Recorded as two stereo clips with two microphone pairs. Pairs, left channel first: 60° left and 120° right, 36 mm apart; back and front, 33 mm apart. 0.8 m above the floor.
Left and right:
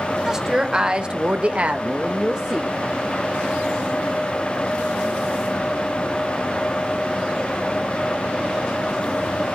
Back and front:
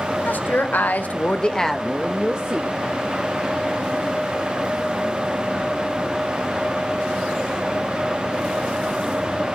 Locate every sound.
0.2 s a woman speaking: 160° left, 1.7 m; by 3.0 s 50° right, 1.7 m